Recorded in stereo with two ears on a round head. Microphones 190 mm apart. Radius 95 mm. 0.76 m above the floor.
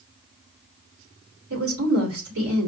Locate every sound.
1.5 s a woman speaking: 75° right (ahead or behind), 2.5 m